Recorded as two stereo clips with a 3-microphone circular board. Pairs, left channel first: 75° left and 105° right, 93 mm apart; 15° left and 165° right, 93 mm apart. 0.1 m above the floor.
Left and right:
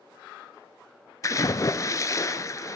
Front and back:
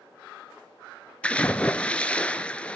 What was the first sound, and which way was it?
A splash, 85° left.